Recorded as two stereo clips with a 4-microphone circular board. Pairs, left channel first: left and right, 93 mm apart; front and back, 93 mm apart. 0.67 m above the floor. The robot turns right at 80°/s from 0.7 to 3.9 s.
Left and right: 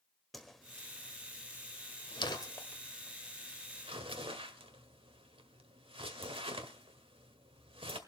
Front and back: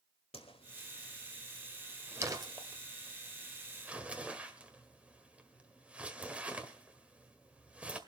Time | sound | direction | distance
0.3 | a whoosh | straight ahead | 1.5 m